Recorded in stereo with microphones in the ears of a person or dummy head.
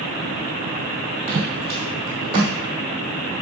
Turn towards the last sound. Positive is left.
turn(degrees=-20)  # may be behind; listen again after turning